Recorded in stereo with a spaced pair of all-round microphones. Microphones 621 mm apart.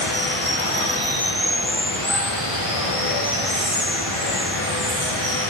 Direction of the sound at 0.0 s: 60° left (ahead or behind).